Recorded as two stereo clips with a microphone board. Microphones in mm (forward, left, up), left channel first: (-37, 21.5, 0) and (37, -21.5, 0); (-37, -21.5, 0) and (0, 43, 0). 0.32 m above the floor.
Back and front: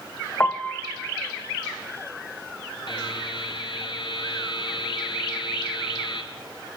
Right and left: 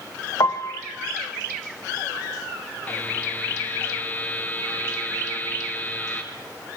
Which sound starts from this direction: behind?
A buzzer, at 2.9 s.